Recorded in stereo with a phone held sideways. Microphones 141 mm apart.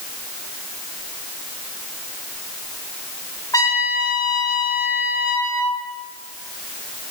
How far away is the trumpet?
About 2.5 m.